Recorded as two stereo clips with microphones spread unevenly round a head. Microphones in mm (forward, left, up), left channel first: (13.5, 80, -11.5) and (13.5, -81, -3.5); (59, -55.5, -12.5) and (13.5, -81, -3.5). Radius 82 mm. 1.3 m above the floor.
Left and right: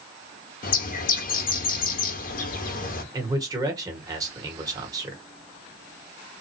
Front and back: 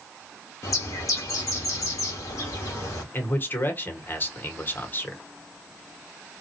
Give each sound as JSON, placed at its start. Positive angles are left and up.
{"t": 0.6, "sound": "a bird", "azimuth_deg": 65, "distance_m": 0.9}
{"t": 3.1, "sound": "a man speaking", "azimuth_deg": -20, "distance_m": 1.3}